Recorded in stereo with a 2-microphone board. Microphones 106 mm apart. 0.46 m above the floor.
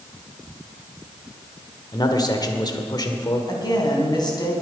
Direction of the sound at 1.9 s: 40° left (ahead or behind).